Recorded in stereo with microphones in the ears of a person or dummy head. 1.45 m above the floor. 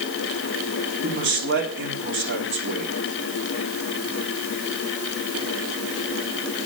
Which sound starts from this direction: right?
A man speaking, at 1.0 s.